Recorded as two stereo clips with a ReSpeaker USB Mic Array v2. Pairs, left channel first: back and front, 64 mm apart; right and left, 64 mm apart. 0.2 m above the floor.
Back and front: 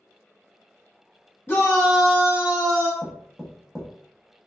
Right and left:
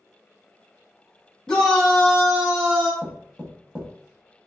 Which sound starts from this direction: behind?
A shout, at 1.5 s.